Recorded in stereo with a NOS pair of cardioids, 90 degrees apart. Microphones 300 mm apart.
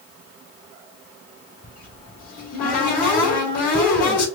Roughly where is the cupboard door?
Ahead left.